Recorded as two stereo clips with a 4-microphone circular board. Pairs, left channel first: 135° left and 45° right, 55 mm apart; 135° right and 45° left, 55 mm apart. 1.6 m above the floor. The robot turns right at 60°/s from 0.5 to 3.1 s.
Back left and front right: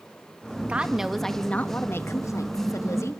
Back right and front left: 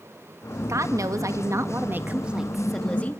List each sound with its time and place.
0.7 s a woman speaking: 20° left, 1.9 m; by 3.2 s 165° left, 1.9 m